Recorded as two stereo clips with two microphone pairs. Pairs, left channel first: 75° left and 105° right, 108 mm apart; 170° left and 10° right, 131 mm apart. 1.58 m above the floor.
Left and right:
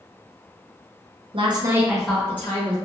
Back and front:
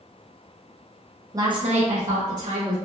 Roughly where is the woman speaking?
Right.